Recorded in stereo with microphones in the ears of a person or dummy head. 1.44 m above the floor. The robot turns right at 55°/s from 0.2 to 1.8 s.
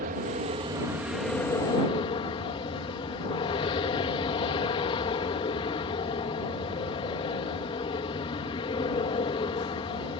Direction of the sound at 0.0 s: 55° right.